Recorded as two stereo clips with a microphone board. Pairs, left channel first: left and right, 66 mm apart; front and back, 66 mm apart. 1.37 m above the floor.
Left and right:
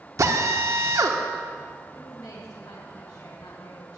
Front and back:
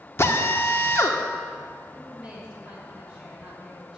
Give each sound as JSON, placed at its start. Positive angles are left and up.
{"t": 0.2, "sound": "a drill", "azimuth_deg": -55, "distance_m": 1.3}
{"t": 1.9, "sound": "a woman speaking", "azimuth_deg": 100, "distance_m": 5.5}